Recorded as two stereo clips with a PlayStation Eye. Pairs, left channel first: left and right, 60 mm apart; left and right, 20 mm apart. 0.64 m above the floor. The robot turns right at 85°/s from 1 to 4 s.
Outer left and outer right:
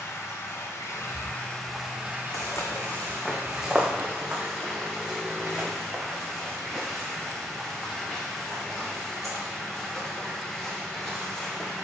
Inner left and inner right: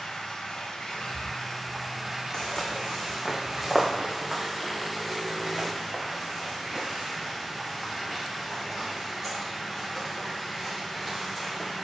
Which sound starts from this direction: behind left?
Running water, at 0.0 s.